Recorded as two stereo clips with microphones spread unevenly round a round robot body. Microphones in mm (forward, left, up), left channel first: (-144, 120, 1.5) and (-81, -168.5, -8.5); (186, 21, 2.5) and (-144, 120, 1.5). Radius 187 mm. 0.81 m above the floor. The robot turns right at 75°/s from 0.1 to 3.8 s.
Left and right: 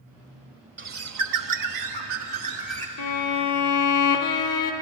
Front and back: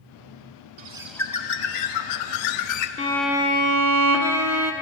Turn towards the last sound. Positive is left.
turn(degrees=115)